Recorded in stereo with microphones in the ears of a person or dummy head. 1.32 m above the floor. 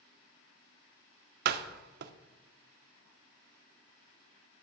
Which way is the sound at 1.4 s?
60° right (ahead or behind).